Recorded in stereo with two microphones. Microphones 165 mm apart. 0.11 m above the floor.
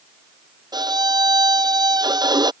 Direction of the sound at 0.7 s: 25° right (ahead or behind).